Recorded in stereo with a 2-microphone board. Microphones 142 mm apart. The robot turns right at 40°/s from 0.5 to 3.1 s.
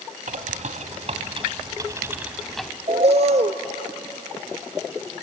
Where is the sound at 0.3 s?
80° right, 1.1 m; by 2.7 s 5° left, 1.1 m.